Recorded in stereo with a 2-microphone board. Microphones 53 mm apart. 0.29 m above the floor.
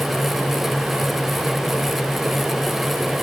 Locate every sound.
Only background noise.